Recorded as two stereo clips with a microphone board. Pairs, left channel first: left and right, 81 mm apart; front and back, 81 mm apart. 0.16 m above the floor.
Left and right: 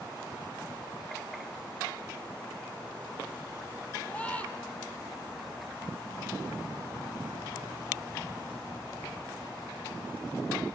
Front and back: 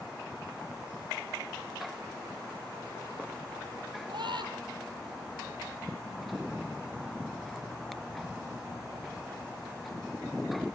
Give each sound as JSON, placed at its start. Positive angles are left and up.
{"t": 4.1, "sound": "a scream", "azimuth_deg": 165, "distance_m": 5.0}